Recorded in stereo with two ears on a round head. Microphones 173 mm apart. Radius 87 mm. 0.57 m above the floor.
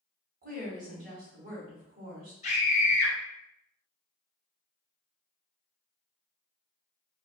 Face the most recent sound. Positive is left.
turn(degrees=35)  # may be behind; listen again after turning